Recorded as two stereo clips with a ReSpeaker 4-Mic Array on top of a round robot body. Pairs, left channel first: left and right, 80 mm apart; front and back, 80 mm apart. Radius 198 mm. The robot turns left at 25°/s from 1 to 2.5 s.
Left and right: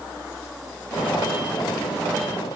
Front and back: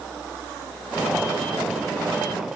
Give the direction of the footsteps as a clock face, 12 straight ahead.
I don't hear footsteps.